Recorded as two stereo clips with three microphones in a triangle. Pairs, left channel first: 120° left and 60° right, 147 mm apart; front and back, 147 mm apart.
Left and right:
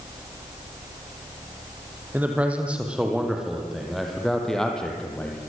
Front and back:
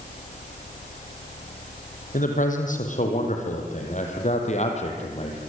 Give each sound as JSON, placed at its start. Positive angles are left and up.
{"t": 2.1, "sound": "a man speaking", "azimuth_deg": 20, "distance_m": 5.0}